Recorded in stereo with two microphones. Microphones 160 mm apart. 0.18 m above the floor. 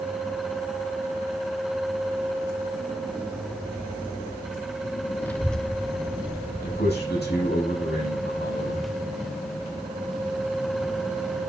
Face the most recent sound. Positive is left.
turn(degrees=80)